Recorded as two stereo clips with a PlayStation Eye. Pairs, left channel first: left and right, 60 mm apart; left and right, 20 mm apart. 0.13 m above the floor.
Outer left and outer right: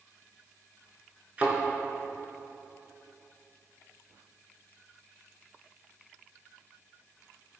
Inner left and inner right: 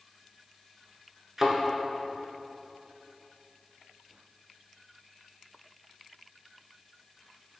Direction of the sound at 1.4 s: 25° right (ahead or behind).